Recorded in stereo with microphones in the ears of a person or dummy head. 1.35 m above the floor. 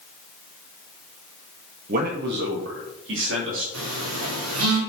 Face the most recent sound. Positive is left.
turn(degrees=-80)